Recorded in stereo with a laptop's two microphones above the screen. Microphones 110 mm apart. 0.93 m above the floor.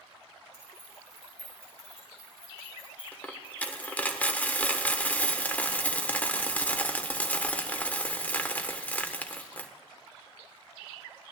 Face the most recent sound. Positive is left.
turn(degrees=15)  # may be behind; listen again after turning